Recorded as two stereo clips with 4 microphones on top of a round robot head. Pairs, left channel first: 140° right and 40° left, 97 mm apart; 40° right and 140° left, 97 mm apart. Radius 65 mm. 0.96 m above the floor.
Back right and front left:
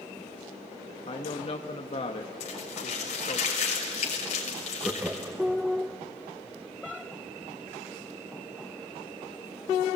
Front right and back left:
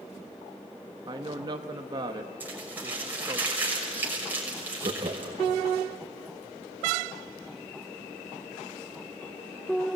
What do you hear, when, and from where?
1.1 s a woman speaking: 170° right, 1.2 m
2.4 s crumpling: 145° right, 6 m
4.8 s laughter: 115° left, 1.3 m